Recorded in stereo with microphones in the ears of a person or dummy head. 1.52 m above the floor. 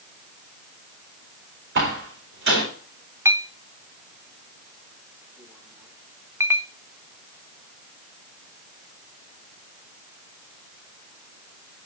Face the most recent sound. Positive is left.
turn(degrees=-10)  # may be behind; listen again after turning